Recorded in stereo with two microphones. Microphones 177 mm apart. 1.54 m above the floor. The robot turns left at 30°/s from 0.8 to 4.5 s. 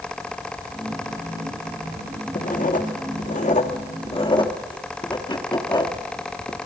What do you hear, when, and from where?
2.4 s writing: 50° left (ahead or behind), 1.3 m; by 6.6 s 25° left (ahead or behind), 1.3 m